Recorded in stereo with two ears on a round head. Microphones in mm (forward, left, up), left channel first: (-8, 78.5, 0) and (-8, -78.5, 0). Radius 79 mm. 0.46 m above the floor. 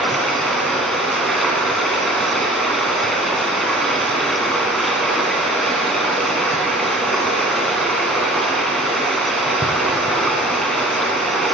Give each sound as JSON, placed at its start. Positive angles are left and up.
{"t": 0.0, "sound": "running water", "side_deg": 0, "distance_m": 1.6}